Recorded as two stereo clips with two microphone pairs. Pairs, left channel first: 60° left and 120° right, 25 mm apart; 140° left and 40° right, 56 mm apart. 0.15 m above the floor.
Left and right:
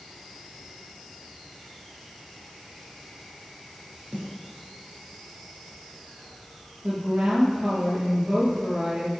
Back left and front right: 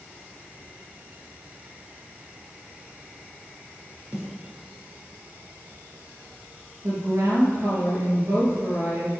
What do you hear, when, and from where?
4.1 s a snare drum: 105° right, 3 m
6.8 s a woman speaking: 85° right, 4 m